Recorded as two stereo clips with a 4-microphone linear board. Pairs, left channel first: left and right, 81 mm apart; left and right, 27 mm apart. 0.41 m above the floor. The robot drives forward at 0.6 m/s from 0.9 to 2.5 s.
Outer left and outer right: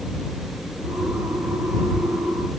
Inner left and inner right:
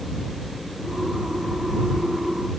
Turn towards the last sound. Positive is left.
No sound to turn to.